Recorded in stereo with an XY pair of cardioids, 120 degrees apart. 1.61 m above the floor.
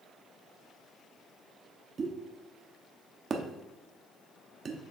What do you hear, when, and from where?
2.0 s a pop: 35° right, 1.1 m